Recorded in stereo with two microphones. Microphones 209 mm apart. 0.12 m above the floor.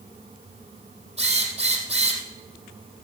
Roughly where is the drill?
Right.